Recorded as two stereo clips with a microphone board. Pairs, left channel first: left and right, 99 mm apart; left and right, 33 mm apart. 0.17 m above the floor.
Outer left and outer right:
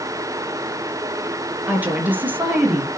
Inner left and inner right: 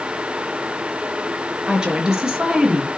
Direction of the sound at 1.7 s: 20° right (ahead or behind).